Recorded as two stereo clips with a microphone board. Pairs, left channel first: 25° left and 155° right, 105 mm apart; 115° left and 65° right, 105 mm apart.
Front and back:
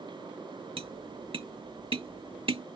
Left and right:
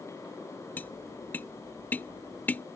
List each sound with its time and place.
0.8 s tapping: 175° right